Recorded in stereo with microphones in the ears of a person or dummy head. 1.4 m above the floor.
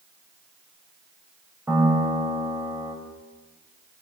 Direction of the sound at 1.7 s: 10° right (ahead or behind).